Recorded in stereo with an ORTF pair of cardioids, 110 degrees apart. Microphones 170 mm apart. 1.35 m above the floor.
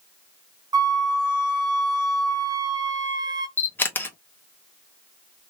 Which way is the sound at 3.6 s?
10° left.